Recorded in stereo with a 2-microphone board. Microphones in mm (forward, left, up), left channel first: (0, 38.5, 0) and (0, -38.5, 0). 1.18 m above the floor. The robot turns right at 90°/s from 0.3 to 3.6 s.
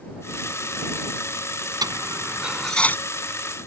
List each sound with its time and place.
1.8 s a dropped coin: 55° right (ahead or behind); by 3.0 s 25° left (ahead or behind)